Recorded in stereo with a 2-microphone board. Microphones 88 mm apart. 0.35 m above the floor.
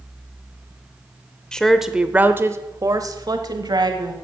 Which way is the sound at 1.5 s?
10° left (ahead or behind).